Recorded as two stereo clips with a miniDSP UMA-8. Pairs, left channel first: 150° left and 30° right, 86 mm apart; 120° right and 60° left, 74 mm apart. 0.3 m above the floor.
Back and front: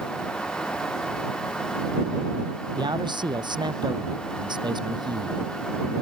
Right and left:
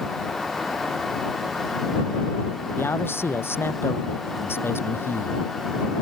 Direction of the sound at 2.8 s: 60° right.